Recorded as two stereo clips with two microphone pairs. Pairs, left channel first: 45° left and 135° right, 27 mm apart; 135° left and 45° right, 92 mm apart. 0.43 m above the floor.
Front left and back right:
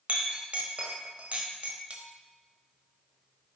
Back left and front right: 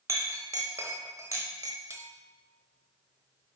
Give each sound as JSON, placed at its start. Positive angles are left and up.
{"t": 0.1, "sound": "a clink", "azimuth_deg": -100, "distance_m": 1.0}